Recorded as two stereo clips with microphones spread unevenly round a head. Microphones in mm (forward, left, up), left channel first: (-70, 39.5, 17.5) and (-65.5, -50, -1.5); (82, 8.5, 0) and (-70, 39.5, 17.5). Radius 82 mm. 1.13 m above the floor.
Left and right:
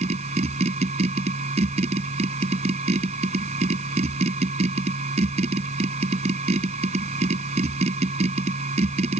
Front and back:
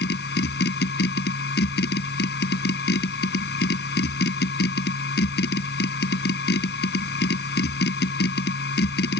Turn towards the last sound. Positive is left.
turn(degrees=-45)